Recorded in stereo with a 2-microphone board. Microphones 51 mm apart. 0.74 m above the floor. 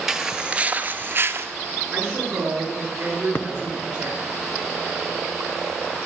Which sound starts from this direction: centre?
Footsteps, at 0.1 s.